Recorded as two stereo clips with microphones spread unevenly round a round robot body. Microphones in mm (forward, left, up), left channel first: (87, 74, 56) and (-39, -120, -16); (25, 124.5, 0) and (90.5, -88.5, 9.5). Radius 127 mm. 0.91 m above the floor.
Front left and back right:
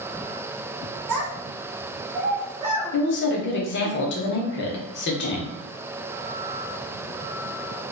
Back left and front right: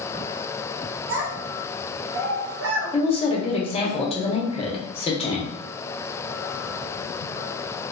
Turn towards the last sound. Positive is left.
turn(degrees=80)